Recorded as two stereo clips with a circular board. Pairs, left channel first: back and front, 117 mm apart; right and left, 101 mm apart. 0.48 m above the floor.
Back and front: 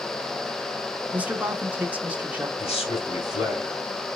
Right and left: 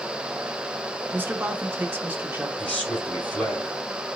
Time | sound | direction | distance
1.1 | a man speaking | 55° left | 0.7 m
2.6 | a man speaking | 170° right | 3 m